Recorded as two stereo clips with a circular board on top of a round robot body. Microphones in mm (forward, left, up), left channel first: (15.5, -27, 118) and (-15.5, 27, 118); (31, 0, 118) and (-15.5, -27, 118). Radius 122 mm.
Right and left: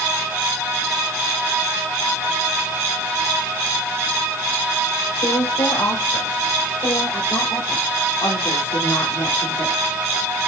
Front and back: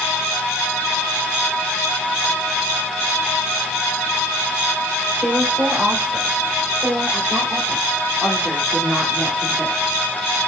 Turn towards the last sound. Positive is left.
turn(degrees=-35)